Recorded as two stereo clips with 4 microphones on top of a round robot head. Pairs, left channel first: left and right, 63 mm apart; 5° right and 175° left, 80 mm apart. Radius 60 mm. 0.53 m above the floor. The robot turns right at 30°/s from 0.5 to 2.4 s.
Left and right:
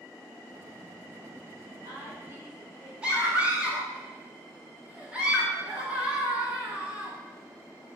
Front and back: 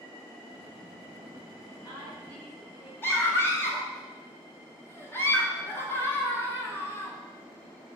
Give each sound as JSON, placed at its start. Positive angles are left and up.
{"t": 1.6, "sound": "a woman speaking", "azimuth_deg": -65, "distance_m": 1.7}
{"t": 3.0, "sound": "a scream", "azimuth_deg": -35, "distance_m": 1.2}